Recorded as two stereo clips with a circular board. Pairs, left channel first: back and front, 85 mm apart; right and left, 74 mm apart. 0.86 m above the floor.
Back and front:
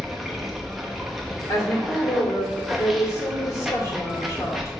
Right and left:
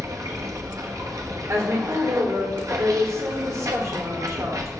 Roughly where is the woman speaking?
Behind left.